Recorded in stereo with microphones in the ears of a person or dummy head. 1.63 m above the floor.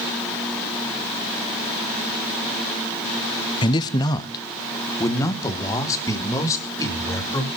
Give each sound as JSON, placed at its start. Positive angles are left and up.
{"t": 3.6, "sound": "a man speaking", "side_deg": 25, "distance_m": 0.6}